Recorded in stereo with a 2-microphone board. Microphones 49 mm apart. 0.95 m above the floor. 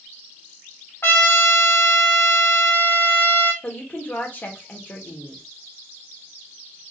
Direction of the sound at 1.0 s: 55° left (ahead or behind).